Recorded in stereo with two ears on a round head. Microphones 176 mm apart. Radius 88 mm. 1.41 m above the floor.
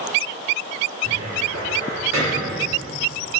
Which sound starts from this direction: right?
A cupboard door, at 1.0 s.